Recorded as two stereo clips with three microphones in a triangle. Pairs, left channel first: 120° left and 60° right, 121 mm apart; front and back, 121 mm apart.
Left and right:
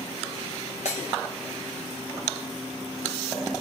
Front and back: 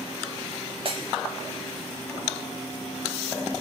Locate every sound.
0.8 s breaking glass: 140° left, 4.5 m